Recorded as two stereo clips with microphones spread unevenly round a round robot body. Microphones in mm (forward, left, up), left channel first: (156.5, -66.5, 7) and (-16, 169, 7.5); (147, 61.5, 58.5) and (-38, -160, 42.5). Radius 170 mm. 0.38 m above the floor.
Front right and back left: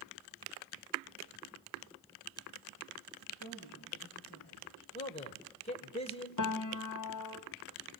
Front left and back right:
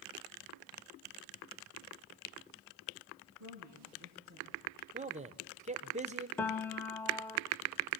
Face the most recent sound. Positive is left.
turn(degrees=-35)